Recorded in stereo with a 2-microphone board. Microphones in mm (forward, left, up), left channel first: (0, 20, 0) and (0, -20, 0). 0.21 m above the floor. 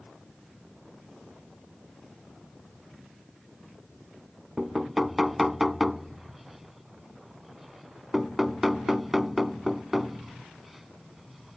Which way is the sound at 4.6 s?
5° right (ahead or behind).